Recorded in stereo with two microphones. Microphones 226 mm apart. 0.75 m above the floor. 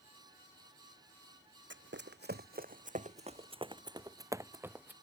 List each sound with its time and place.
1.7 s running footsteps: 65° right (ahead or behind); by 4.9 s 10° right (ahead or behind)